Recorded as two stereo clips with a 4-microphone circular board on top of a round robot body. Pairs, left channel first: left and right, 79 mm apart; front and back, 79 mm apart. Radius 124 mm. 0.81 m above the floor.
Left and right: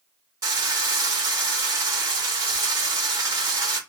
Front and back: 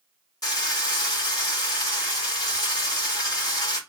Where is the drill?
50° right, 2.5 m.